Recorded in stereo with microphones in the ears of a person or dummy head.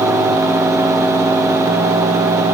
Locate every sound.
Only background noise.